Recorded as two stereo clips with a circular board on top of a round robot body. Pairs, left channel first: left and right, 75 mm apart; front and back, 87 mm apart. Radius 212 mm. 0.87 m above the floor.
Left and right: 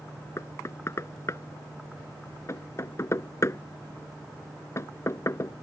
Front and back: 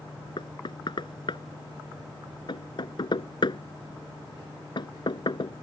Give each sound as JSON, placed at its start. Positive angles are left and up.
{"t": 0.4, "sound": "knocking", "azimuth_deg": 35}